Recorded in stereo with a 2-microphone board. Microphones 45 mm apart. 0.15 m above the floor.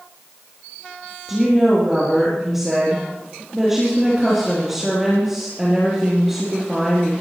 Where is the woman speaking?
10° right (ahead or behind), 4 m.